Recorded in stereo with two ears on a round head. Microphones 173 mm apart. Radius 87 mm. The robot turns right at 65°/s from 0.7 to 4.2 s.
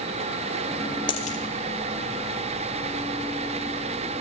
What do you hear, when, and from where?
1.1 s a dropped coin: 25° left (ahead or behind), 3 m; by 1.4 s 45° left (ahead or behind), 3 m